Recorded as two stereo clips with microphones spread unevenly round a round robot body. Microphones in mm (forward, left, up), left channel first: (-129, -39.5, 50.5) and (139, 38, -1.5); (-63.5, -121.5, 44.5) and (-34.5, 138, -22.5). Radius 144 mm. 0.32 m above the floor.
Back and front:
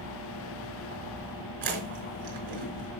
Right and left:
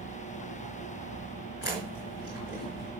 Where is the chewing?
40° right, 4.5 m.